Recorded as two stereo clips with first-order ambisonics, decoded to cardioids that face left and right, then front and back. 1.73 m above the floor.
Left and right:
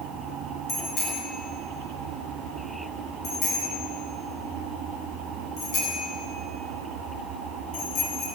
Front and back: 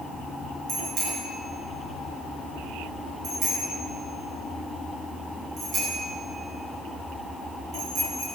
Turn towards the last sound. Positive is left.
turn(degrees=120)